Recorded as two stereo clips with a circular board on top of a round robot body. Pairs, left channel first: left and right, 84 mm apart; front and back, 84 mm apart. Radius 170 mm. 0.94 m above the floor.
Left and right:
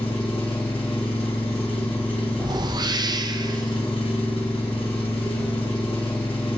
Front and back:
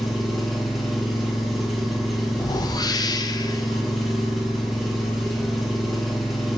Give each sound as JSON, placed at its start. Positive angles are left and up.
{"t": 0.0, "sound": "an engine running", "azimuth_deg": 90, "distance_m": 1.6}
{"t": 2.4, "sound": "a whoosh", "azimuth_deg": -45, "distance_m": 0.5}